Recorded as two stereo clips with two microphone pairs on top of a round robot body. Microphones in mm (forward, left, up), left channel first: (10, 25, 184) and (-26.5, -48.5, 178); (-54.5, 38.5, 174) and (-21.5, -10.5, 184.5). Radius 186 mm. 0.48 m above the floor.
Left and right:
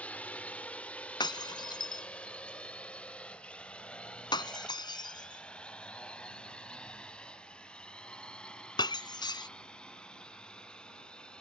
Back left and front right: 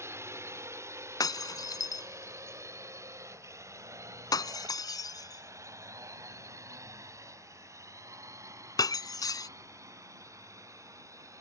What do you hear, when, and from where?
0.0 s a drone: 10° right; by 11.4 s 15° right
1.2 s breaking glass: 105° left